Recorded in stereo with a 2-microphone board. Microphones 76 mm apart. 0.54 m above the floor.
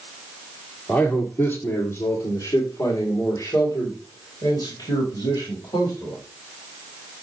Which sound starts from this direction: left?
A man speaking, at 0.9 s.